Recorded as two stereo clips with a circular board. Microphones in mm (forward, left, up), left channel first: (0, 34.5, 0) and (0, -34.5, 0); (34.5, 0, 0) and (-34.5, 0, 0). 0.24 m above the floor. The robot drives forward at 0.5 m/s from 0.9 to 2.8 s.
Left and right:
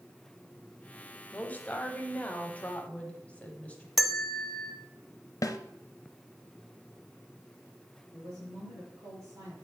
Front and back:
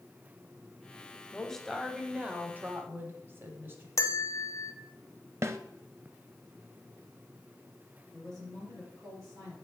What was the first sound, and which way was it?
A woman speaking, 60° left.